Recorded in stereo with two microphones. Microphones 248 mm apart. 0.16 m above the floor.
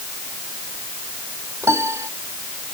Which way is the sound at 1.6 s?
10° right (ahead or behind).